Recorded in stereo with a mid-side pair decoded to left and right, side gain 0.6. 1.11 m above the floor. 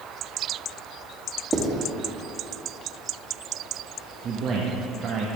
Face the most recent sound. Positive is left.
turn(degrees=-50)